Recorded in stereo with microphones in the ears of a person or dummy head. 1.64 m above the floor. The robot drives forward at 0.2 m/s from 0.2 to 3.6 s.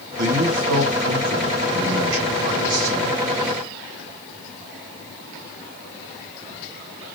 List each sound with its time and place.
0.2 s a man speaking: 80° right, 1.7 m; by 3.3 s 70° right (ahead or behind), 1.8 m